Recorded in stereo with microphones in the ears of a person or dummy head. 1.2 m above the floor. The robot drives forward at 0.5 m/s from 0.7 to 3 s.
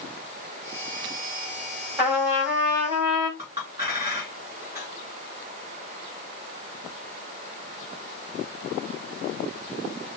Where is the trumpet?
10° right (ahead or behind), 2.5 m; by 3.3 s 5° right (ahead or behind), 3 m.